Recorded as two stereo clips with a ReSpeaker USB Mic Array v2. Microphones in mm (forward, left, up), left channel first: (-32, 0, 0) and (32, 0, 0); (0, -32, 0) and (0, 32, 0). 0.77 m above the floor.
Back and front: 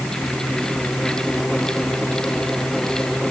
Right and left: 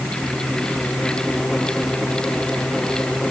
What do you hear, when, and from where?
Only background noise.